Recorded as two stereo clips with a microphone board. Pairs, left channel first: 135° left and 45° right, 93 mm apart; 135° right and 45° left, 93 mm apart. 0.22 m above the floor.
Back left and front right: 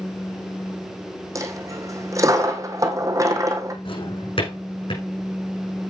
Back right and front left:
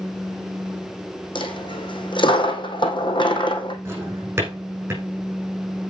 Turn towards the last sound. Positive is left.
turn(degrees=110)